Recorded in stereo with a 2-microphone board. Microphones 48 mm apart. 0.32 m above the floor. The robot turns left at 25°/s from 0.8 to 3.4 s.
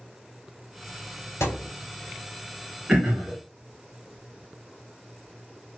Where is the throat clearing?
20° right (ahead or behind), 1.3 m; by 3.4 s 35° right (ahead or behind), 1.3 m.